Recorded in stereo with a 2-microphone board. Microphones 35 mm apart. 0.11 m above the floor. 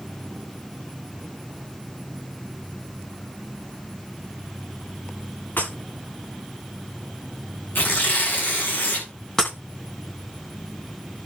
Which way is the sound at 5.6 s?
80° left.